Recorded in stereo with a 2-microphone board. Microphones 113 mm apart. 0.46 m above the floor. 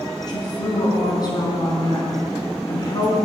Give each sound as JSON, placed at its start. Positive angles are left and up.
{"t": 0.3, "sound": "a woman speaking", "side_deg": 35, "distance_m": 4.0}